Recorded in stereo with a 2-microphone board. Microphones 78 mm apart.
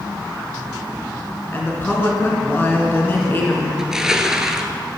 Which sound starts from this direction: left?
A woman speaking, at 1.5 s.